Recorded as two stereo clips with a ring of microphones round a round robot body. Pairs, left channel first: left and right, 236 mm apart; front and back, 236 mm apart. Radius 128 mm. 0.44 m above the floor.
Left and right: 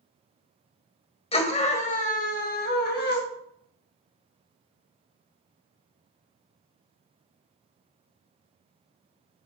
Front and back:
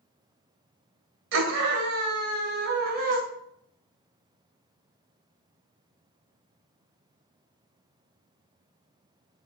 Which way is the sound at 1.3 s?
150° left.